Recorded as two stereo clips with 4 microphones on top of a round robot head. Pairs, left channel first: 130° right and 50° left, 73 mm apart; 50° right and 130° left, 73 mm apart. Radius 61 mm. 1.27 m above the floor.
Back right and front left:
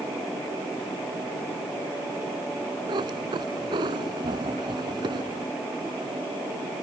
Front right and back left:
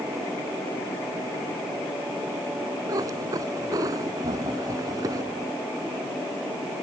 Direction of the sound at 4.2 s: 90° left.